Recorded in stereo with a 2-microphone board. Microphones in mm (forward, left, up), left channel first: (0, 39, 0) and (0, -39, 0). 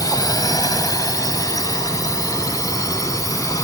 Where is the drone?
55° left (ahead or behind); by 3.6 s 50° left (ahead or behind).